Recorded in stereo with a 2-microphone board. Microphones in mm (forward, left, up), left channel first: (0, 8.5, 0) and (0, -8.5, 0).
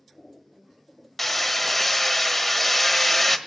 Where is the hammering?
5° left (ahead or behind), 1.3 m.